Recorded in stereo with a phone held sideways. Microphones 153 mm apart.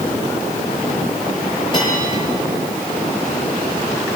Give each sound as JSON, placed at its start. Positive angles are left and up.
{"t": 1.7, "sound": "a bell", "side_deg": 30, "distance_m": 9.5}